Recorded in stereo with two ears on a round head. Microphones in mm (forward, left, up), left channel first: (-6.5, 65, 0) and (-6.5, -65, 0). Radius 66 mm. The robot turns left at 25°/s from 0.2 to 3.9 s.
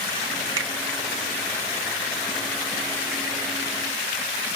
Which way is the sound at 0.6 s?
25° right (ahead or behind).